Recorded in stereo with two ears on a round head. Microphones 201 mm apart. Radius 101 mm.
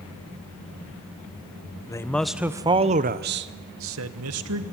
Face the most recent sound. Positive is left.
turn(degrees=-75)  # may be behind; listen again after turning